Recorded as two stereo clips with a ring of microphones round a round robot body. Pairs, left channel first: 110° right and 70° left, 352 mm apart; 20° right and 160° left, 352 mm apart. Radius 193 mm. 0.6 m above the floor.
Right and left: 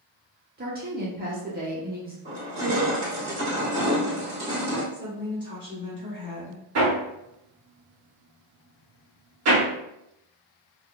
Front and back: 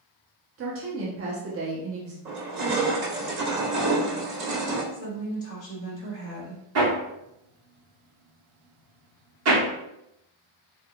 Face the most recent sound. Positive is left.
turn(degrees=110)